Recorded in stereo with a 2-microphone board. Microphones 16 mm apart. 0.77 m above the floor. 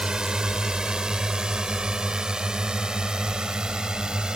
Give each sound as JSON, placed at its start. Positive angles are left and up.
{"t": 0.0, "sound": "a drone", "side_deg": -55}